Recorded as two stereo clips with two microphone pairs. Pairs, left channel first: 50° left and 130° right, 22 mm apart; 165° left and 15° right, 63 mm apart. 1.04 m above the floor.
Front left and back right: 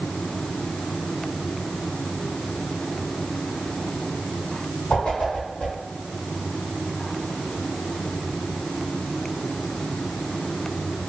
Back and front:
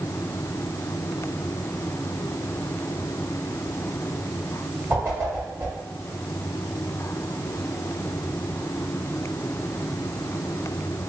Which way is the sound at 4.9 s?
25° left.